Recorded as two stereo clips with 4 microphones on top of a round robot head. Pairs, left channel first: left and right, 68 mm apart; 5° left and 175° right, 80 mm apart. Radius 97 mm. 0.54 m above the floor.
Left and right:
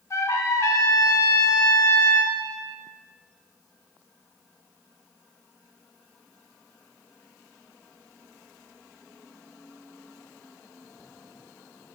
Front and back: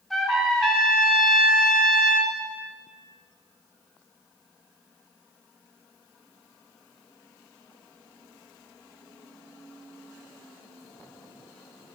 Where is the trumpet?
90° left, 0.7 m.